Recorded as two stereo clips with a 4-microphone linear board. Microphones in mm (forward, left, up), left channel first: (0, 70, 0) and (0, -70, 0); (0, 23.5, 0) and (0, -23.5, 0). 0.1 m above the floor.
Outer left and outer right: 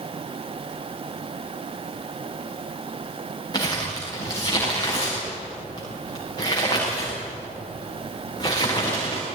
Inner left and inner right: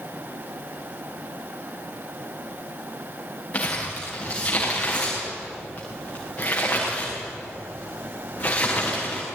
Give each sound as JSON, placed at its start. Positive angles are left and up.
{"t": 3.5, "sound": "crumpling", "side_deg": 30, "distance_m": 7.5}